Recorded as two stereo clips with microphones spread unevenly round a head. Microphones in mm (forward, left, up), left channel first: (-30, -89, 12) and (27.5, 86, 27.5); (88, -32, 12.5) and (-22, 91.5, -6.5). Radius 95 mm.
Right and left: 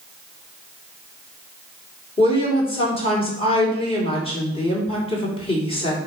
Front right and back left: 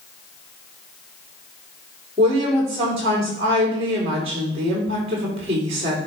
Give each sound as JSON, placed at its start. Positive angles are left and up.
{"t": 2.2, "sound": "a woman speaking", "azimuth_deg": -170, "distance_m": 3.5}